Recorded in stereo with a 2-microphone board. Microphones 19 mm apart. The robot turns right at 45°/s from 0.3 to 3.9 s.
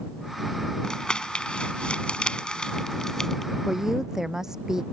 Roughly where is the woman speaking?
Centre.